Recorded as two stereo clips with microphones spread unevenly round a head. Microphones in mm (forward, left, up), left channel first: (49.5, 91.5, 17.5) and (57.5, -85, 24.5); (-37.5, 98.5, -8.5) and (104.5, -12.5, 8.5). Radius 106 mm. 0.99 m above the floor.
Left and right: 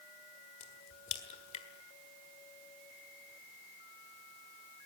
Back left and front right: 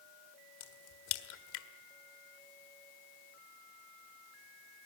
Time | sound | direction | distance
0.6 | a crack | 155° left | 1.6 m